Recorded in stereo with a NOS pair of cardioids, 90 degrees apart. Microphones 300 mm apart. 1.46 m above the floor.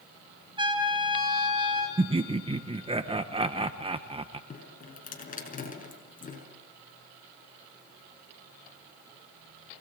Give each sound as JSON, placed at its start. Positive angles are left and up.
{"t": 0.6, "sound": "a trumpet", "azimuth_deg": -15, "distance_m": 9.5}
{"t": 2.0, "sound": "laughter", "azimuth_deg": -20, "distance_m": 1.0}
{"t": 4.5, "sound": "dripping", "azimuth_deg": 30, "distance_m": 6.0}